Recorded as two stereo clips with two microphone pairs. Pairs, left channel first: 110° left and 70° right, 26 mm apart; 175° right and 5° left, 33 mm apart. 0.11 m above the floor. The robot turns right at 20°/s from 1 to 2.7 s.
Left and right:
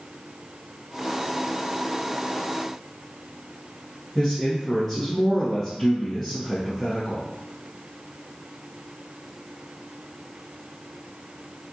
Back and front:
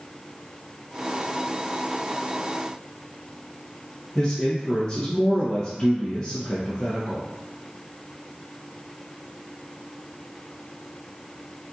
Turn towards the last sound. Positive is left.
turn(degrees=-170)